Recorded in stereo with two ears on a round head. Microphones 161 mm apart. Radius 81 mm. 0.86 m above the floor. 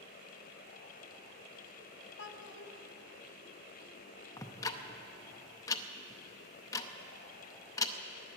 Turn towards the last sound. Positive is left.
turn(degrees=20)  # may be behind; listen again after turning